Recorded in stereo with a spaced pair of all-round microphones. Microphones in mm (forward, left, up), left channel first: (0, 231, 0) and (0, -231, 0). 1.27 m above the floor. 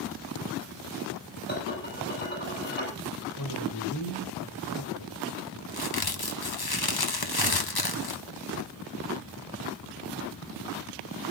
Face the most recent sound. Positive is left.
turn(degrees=50)  # may be behind; listen again after turning